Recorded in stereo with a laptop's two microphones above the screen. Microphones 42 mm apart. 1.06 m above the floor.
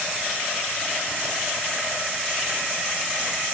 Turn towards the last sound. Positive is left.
No sound to turn to.